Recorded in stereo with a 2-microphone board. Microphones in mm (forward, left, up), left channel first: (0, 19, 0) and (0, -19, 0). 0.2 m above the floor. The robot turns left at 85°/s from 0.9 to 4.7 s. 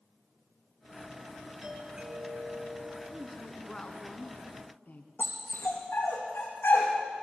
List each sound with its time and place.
1.6 s a doorbell: 15° right, 3 m; by 3.0 s 130° right, 3 m
3.1 s a woman speaking: 150° right, 2.5 m; by 5.1 s 75° left, 2.5 m
5.2 s a dog barking: 70° left (ahead or behind), 4.5 m